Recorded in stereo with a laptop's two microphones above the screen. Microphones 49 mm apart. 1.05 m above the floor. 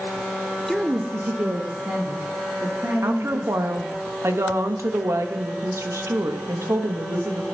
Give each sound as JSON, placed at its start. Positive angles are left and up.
{"t": 0.7, "sound": "a woman speaking", "side_deg": 10, "distance_m": 0.6}
{"t": 3.0, "sound": "a woman speaking", "side_deg": -70, "distance_m": 0.9}